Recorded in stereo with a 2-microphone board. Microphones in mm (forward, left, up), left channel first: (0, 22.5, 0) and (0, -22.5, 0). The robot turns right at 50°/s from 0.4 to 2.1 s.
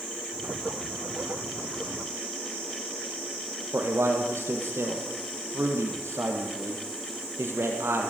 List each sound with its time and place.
3.7 s a man speaking: 70° right (ahead or behind), 4.5 m